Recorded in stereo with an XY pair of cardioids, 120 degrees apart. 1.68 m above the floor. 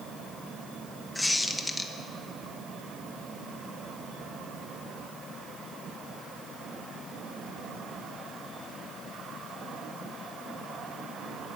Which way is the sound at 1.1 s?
15° left.